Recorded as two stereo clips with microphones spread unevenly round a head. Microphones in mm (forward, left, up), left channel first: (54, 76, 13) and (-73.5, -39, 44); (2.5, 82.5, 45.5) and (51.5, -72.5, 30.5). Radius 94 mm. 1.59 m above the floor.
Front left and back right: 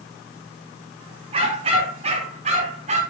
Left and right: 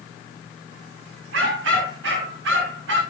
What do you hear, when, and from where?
1.3 s a dog barking: 75° right, 8.5 m; by 3.0 s 85° right, 8.5 m